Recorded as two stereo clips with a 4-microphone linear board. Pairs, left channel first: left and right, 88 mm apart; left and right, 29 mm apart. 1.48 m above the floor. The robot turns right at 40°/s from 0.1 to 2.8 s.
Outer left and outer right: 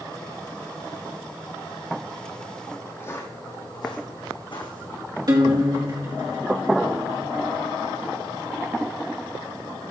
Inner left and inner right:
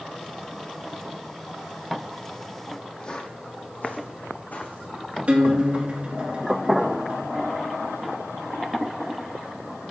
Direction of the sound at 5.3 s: 50° right (ahead or behind).